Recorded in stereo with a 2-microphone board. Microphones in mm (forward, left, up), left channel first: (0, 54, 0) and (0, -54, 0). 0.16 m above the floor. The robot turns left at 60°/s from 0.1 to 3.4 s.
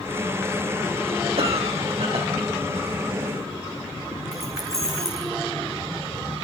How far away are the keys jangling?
About 7 m.